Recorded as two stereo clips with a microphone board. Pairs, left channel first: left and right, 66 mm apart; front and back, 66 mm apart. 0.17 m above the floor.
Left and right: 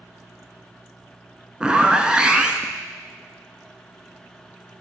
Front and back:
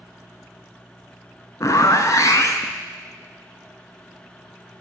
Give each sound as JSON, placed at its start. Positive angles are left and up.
{"t": 1.6, "sound": "a zipper", "azimuth_deg": -15, "distance_m": 0.6}